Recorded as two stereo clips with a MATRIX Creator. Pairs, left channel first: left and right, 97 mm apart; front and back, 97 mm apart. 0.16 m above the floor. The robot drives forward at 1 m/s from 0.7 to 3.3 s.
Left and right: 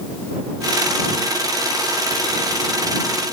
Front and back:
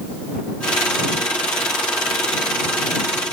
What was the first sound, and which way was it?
Only background noise.